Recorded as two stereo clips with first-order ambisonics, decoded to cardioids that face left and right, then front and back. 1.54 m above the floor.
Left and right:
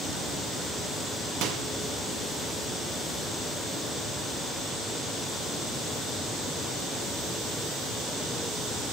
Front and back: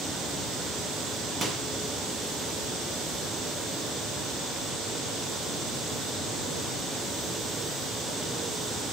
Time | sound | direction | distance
1.4 | a microwave | 110° right | 0.9 m